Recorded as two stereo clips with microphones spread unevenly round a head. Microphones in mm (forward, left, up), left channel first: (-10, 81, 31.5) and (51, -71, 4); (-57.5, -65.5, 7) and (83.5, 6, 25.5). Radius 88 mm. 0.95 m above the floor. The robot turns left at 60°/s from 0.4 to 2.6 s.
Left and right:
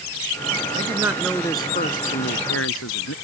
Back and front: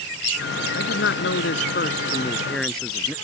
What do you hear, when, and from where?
0.7 s a man speaking: 130° right; by 3.1 s 120° left